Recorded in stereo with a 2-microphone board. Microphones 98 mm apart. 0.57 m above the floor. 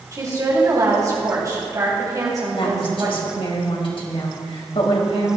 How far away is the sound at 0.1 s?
About 4 m.